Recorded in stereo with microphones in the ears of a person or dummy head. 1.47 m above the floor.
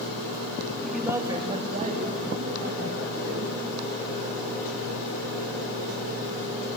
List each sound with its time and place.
0.8 s a man speaking: 5° left (ahead or behind), 1.6 m; by 3.5 s 55° right (ahead or behind), 5 m